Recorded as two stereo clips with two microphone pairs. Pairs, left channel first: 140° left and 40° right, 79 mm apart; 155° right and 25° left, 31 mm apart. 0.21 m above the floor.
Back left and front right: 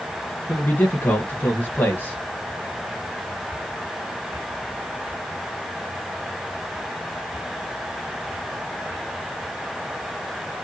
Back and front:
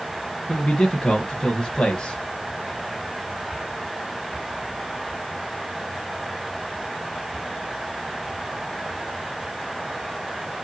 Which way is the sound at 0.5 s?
165° left.